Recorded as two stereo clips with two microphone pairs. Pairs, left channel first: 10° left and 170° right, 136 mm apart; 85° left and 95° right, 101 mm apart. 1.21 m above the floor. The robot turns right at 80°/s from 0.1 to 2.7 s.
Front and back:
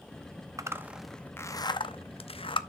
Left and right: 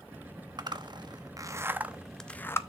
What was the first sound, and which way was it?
A zipper, 120° right.